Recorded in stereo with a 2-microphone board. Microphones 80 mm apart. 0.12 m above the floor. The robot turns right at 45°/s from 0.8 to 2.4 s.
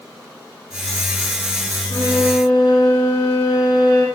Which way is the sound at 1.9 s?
75° left (ahead or behind).